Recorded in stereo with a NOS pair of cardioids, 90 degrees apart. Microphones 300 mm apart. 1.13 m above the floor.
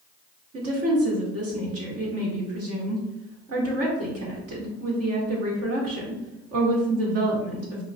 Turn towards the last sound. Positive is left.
turn(degrees=-55)